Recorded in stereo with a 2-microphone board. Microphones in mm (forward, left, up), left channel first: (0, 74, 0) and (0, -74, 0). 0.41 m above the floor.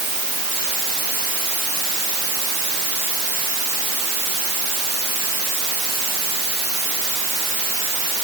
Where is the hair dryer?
I don't hear a hair dryer.